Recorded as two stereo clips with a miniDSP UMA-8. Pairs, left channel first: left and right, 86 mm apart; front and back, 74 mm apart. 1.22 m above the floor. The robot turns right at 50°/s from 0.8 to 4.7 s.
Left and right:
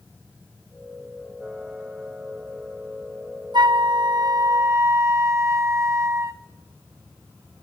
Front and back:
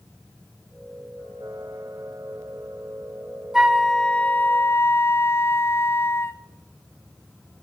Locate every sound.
3.5 s a flute: 100° right, 0.8 m; by 6.4 s 40° right, 0.8 m